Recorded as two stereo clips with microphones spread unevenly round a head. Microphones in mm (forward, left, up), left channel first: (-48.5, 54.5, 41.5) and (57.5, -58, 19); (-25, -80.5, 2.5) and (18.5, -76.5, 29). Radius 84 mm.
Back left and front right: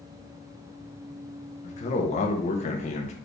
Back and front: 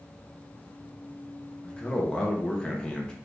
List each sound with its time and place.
1.6 s a man speaking: 170° left, 0.8 m